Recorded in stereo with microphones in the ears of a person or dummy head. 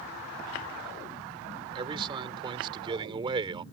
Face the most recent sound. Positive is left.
turn(degrees=-25)  # may be behind; listen again after turning